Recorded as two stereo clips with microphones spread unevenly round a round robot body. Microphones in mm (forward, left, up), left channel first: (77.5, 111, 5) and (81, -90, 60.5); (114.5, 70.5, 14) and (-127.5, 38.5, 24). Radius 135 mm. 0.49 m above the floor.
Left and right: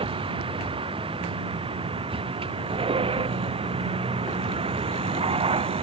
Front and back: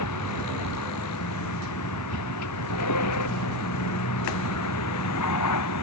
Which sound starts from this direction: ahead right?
A vehicle, at 0.0 s.